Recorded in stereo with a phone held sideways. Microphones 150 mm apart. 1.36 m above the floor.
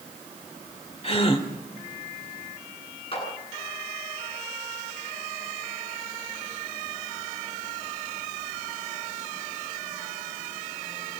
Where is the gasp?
45° left (ahead or behind), 2.5 m.